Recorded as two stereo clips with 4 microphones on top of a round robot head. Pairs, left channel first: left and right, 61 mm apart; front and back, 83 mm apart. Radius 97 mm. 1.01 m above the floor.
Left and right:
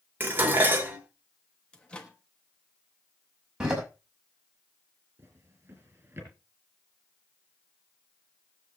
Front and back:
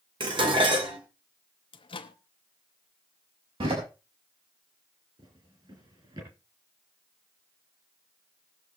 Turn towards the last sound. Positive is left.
turn(degrees=-140)